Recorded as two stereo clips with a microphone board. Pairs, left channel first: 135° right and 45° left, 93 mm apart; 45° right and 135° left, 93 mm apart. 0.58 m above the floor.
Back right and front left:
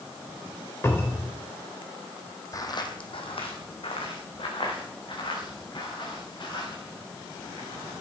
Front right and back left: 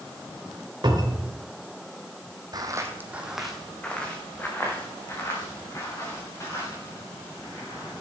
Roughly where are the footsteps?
Behind.